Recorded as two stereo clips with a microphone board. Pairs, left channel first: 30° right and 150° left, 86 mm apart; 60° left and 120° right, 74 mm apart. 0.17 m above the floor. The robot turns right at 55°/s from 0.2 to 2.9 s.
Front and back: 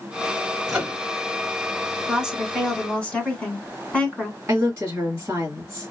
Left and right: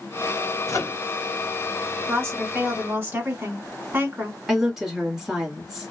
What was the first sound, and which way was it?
A microwave, 70° left.